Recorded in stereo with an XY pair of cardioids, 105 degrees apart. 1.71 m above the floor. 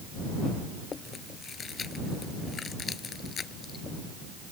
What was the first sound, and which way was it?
Chewing, 40° left.